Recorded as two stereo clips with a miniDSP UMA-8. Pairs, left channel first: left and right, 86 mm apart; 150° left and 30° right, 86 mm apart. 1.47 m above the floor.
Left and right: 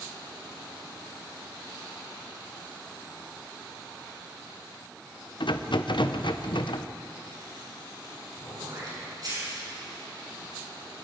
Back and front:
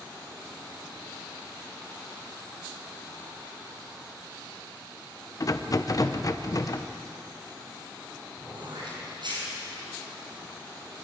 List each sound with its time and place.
5.4 s a rattle: 105° left, 0.9 m
8.4 s throat clearing: 50° right, 7.5 m